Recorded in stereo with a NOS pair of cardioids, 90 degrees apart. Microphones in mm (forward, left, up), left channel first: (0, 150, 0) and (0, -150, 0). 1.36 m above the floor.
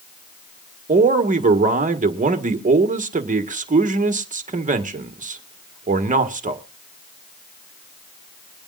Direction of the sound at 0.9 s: 25° right.